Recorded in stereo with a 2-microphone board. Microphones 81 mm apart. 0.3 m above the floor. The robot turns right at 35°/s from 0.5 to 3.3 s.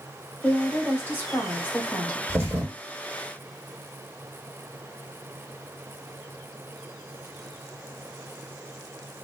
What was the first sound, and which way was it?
A woman speaking, 15° left (ahead or behind).